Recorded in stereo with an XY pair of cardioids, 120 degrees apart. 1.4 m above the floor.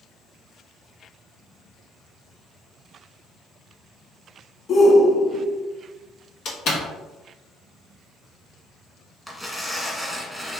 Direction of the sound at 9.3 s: Straight ahead.